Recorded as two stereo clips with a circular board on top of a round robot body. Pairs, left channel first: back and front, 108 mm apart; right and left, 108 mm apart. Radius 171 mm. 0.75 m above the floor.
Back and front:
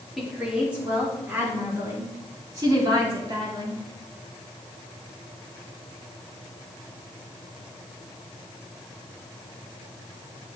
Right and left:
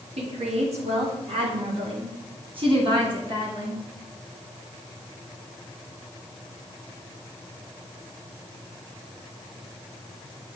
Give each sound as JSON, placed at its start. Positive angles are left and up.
{"t": 0.2, "sound": "a woman speaking", "azimuth_deg": 85, "distance_m": 2.5}